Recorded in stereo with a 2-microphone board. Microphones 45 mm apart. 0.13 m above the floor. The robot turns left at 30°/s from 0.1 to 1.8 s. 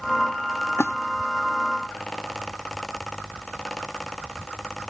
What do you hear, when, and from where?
0.8 s a splash: 65° left (ahead or behind), 0.9 m